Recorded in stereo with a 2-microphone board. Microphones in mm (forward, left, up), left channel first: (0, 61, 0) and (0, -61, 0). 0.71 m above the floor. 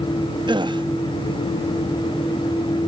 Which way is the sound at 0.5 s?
40° right (ahead or behind).